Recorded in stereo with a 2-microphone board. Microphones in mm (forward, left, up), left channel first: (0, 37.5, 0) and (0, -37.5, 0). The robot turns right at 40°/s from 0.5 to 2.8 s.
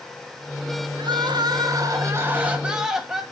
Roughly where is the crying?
Right.